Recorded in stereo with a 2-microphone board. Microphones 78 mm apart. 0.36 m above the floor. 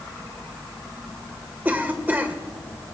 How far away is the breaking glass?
I don't hear breaking glass.